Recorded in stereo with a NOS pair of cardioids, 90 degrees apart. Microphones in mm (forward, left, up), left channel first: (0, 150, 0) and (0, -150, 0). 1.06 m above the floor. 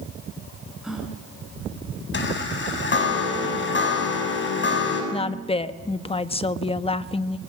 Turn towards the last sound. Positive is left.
turn(degrees=20)